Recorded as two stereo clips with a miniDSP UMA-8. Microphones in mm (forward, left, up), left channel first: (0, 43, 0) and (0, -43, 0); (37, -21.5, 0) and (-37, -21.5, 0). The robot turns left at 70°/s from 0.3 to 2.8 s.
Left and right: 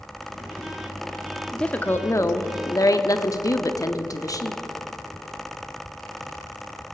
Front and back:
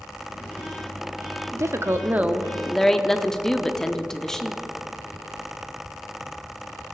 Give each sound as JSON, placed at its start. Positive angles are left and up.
{"t": 1.5, "sound": "a woman speaking", "azimuth_deg": 170, "distance_m": 0.7}